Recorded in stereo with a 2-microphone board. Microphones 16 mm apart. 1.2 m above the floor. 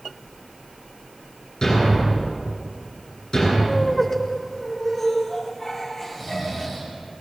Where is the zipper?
No zipper in this recording.